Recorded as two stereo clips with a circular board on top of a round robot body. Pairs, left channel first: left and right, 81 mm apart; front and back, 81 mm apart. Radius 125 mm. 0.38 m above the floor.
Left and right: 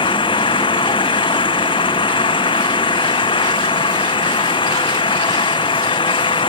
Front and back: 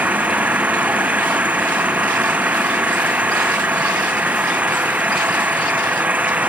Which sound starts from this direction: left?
An engine running, at 0.0 s.